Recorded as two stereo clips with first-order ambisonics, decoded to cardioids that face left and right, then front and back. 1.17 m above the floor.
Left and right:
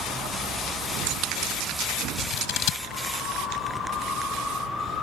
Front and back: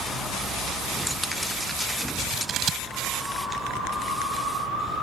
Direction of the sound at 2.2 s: 115° left.